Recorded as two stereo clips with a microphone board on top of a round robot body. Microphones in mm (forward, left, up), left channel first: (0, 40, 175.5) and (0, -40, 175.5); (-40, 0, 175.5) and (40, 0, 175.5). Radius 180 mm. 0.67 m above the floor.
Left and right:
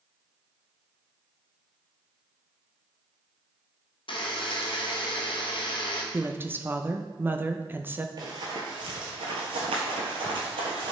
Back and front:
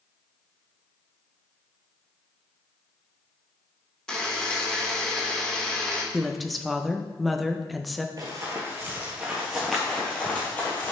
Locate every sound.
4.1 s a buzzer: 95° left, 1.3 m
6.1 s a woman speaking: 90° right, 1.0 m
8.2 s running footsteps: 45° right, 1.2 m; by 10.9 s 115° right, 1.7 m